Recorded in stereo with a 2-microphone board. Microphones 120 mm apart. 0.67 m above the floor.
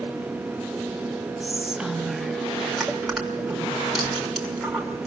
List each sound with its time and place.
1.4 s whispering: 5° right (ahead or behind), 0.9 m
2.8 s crushing: centre (ahead or behind), 5.5 m